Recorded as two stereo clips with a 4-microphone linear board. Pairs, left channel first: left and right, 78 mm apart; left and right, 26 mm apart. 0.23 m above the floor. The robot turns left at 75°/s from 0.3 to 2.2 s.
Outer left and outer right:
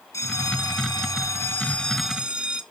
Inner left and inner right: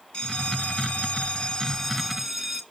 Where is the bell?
130° left, 1.3 m; by 2.6 s 15° right, 1.3 m.